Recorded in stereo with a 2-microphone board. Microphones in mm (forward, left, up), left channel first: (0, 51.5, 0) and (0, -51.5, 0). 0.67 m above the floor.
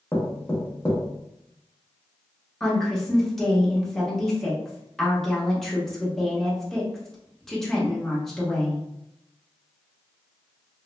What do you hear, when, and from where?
0.1 s knocking: 20° left (ahead or behind), 0.8 m
2.6 s a woman speaking: 5° left (ahead or behind), 0.9 m